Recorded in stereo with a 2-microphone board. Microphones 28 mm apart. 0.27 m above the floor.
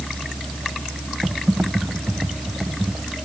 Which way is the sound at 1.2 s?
65° right (ahead or behind).